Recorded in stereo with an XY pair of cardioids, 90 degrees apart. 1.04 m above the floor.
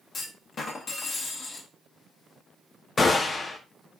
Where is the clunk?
60° left, 0.9 m.